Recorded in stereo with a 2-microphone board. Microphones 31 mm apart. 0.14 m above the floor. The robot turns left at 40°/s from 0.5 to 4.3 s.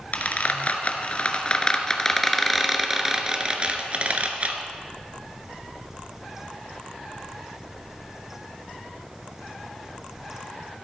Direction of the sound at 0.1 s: 50° left (ahead or behind).